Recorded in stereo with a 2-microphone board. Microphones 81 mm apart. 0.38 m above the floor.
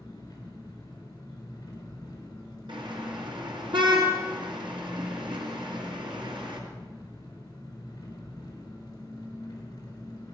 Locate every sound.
0.0 s an engine running: 50° left (ahead or behind), 4 m
2.7 s a car horn: 80° right, 3 m